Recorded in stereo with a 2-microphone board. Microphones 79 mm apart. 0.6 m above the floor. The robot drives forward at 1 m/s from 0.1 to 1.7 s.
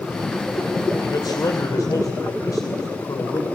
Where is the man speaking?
65° left (ahead or behind), 2.5 m; by 3.5 s 55° left (ahead or behind), 2.5 m.